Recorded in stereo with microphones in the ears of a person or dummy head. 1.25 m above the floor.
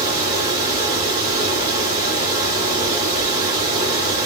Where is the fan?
25° right (ahead or behind), 1.4 m.